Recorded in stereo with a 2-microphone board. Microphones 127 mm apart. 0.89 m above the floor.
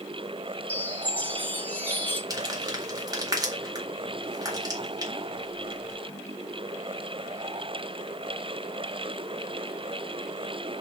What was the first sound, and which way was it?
A chime, 15° left (ahead or behind).